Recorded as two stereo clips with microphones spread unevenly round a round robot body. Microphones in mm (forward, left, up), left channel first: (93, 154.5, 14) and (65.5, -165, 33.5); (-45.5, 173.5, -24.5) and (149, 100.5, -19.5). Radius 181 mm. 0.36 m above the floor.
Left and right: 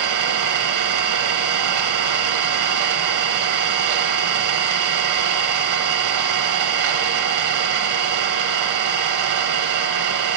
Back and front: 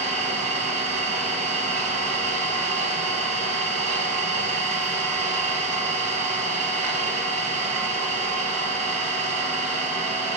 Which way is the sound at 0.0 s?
60° right.